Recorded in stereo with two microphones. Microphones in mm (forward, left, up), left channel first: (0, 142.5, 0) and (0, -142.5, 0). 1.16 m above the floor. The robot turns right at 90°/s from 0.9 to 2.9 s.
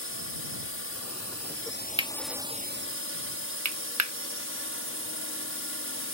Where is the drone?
60° left; by 6.2 s 120° right.